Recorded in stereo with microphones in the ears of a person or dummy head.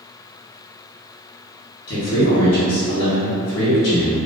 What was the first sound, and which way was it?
A man speaking, 70° left (ahead or behind).